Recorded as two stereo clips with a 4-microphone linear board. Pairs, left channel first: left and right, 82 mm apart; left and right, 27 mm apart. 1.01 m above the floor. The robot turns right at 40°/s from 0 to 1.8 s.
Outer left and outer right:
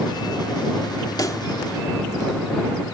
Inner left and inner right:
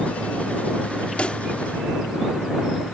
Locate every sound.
1.2 s a pop: 50° left (ahead or behind); by 1.4 s 40° left (ahead or behind)